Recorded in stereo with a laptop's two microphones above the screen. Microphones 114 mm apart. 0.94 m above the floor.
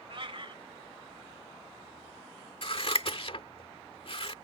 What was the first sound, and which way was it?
A cat meowing, 50° right (ahead or behind).